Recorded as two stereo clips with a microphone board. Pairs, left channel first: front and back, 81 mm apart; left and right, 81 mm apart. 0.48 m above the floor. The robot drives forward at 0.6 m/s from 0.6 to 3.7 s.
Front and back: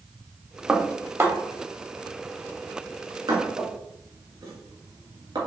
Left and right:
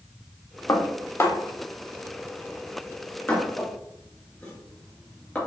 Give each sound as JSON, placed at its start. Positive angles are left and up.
{"t": 0.7, "sound": "dishes clattering", "azimuth_deg": 105, "distance_m": 0.8}